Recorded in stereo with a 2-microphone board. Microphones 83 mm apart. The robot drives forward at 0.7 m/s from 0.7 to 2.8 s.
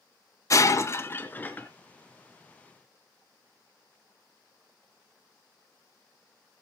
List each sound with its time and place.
0.5 s breaking glass: 40° left (ahead or behind), 0.6 m; by 1.7 s 20° left (ahead or behind), 1.2 m